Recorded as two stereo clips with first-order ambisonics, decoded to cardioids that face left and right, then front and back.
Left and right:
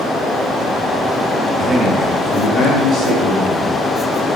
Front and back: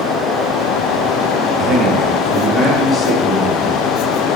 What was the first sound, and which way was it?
A man speaking, 140° right.